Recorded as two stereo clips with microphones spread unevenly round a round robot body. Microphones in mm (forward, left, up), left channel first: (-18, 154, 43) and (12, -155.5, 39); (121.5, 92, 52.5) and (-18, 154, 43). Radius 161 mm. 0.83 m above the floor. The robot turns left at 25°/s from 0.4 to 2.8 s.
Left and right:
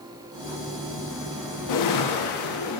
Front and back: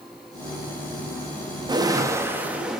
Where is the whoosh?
100° left, 1.5 m; by 2.8 s 70° left, 1.5 m.